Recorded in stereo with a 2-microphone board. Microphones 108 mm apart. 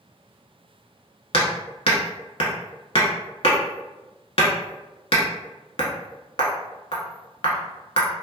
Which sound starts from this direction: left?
Hammering, at 1.3 s.